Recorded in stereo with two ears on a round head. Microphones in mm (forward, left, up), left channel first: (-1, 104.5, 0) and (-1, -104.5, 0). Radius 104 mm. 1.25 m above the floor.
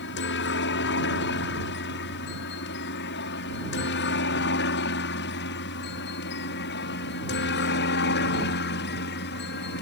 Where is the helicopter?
50° left (ahead or behind).